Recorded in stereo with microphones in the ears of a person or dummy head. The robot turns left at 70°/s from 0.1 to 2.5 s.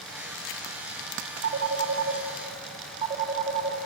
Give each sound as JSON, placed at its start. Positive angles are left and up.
{"t": 1.4, "sound": "a phone ringing", "side_deg": -70, "distance_m": 3.0}